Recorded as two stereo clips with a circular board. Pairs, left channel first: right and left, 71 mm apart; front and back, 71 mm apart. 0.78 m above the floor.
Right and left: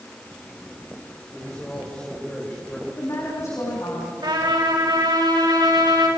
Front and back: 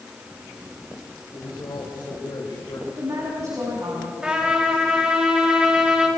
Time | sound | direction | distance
1.3 | a man speaking | 15° right | 4 m
2.9 | a woman speaking | 135° right | 5 m
4.2 | a trumpet | 105° left | 5 m